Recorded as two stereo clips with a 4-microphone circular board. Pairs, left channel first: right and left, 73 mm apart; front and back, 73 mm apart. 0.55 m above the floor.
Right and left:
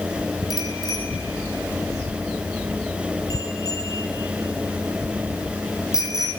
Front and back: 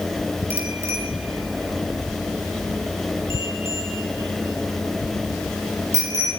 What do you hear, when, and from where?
0.5 s a bicycle bell: 125° right, 6.5 m; by 6.3 s 135° right, 9.5 m